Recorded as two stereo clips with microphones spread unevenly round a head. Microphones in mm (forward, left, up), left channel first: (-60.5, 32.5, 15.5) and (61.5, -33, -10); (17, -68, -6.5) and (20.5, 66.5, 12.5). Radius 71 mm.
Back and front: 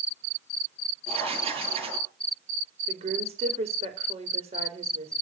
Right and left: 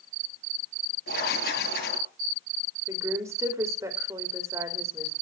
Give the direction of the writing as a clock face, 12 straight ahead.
3 o'clock.